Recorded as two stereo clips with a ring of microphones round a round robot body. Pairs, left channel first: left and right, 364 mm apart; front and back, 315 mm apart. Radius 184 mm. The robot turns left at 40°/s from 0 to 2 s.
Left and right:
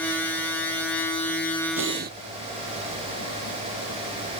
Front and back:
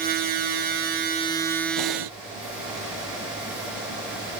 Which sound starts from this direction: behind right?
Breathing, at 1.8 s.